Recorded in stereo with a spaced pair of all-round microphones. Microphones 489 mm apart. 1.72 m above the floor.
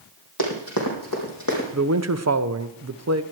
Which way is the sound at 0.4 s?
50° left (ahead or behind).